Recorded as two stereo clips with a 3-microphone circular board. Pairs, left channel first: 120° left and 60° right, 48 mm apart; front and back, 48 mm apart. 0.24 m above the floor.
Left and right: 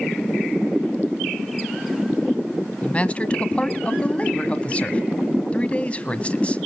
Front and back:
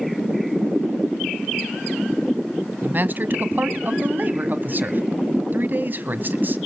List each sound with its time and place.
2.8 s a man speaking: 170° left, 1.6 m